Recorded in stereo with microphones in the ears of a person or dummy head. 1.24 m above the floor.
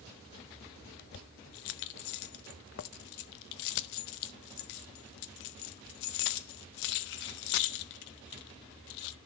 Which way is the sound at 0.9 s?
60° left (ahead or behind).